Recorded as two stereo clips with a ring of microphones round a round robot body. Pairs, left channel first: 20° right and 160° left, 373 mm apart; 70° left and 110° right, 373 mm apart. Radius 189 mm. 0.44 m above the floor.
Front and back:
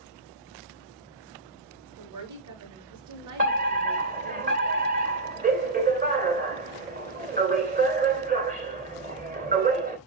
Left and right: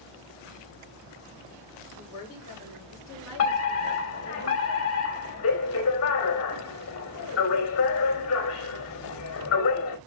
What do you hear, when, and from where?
2.0 s a woman speaking: 115° left, 7 m
3.4 s a fire alarm: 100° left, 2.5 m